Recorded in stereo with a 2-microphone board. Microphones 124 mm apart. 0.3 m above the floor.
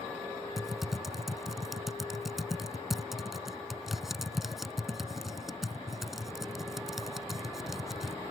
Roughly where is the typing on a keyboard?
Centre.